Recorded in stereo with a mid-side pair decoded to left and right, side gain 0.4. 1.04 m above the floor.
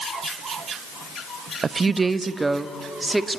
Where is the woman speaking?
40° right, 0.9 m; by 3.4 s 10° right, 1.9 m.